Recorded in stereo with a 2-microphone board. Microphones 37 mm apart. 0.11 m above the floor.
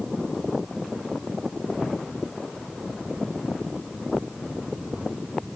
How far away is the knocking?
I don't hear knocking.